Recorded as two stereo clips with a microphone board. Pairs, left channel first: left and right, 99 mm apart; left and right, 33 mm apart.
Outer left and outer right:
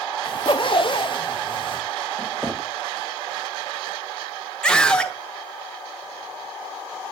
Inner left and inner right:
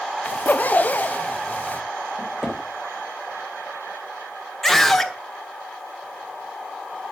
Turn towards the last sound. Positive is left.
turn(degrees=10)  # may be behind; listen again after turning